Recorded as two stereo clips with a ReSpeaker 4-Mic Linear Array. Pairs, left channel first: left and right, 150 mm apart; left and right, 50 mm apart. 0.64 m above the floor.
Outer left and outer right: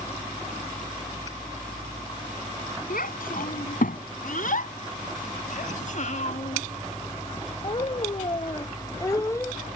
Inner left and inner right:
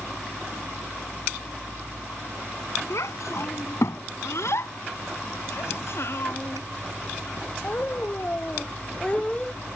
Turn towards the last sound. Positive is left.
turn(degrees=15)  # may be behind; listen again after turning